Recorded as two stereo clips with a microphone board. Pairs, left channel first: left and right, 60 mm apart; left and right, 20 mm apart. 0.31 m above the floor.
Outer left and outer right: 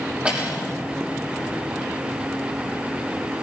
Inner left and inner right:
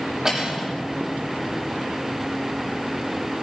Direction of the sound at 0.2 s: 25° right (ahead or behind).